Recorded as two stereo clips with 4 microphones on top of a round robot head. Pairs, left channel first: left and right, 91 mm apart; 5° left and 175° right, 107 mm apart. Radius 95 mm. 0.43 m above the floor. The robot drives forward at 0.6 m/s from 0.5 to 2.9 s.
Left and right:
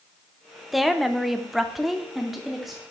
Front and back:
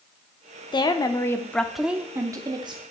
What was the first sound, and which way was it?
A woman speaking, straight ahead.